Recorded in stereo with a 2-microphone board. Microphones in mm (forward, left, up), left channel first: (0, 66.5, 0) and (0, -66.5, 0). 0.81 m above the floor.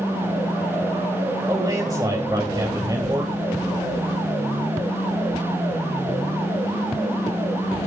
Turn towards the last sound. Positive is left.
turn(degrees=-30)  # may be behind; listen again after turning